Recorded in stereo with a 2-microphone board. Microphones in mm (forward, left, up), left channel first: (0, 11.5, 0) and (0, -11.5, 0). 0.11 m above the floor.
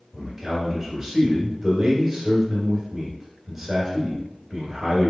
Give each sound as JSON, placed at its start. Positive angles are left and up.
{"t": 0.1, "sound": "a man speaking", "side_deg": -5, "distance_m": 1.6}